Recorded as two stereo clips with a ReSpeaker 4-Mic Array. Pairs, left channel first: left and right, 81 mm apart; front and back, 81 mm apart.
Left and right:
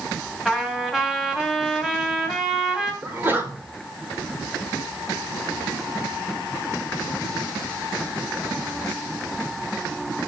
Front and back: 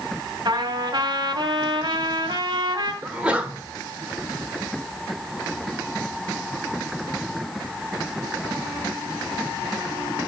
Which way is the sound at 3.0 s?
115° right.